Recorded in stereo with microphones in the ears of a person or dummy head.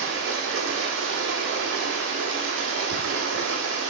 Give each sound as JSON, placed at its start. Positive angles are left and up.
{"t": 0.0, "sound": "running water", "side_deg": -60, "distance_m": 1.4}